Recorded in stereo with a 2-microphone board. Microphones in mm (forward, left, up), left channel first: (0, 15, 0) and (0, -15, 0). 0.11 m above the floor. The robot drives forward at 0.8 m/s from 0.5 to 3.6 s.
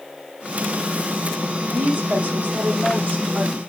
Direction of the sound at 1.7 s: 70° right (ahead or behind).